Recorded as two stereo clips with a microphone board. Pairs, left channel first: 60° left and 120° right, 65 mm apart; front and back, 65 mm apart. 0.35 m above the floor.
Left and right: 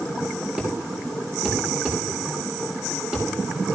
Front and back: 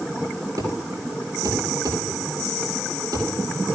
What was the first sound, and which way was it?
A thud, 170° left.